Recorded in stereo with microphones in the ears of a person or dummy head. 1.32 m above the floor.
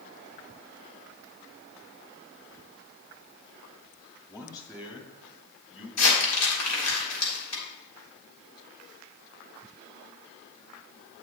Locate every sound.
4.3 s a man speaking: 15° left (ahead or behind), 1.9 m; by 5.9 s 25° left (ahead or behind), 4 m
6.0 s crumpling: 90° left, 4 m